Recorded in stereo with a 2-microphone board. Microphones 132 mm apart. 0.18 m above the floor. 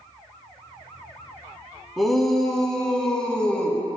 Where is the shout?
Centre (ahead or behind), 1.0 m; by 3.8 s 5° left (ahead or behind), 1.4 m.